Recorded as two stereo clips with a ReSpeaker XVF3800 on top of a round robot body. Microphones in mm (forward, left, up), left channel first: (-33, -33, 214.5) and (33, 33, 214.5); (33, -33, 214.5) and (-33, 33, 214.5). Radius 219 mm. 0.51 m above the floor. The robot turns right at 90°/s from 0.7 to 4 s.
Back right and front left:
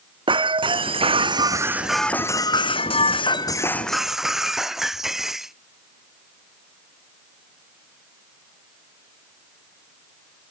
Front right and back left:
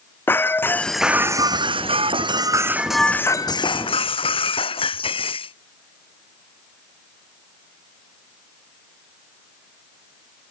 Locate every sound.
0.3 s breaking glass: 20° left; by 5.5 s 40° right